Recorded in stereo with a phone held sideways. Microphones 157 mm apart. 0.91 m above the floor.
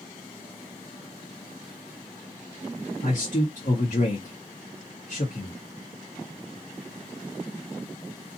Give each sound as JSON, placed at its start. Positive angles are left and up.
{"t": 3.0, "sound": "a man speaking", "side_deg": 55, "distance_m": 1.2}